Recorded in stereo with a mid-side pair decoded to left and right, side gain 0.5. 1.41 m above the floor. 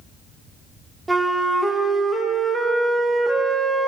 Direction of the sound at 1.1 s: 15° right.